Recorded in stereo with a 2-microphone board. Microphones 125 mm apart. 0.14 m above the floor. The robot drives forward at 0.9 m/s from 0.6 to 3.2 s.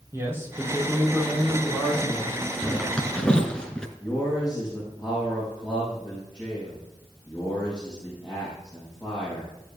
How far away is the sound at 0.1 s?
About 5 m.